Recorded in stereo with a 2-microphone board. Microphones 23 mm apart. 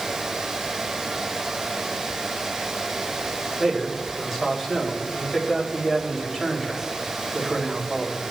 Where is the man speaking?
15° left (ahead or behind), 3.5 m.